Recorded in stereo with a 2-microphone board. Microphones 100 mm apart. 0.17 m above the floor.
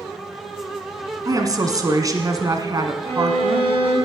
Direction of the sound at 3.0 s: 55° right (ahead or behind).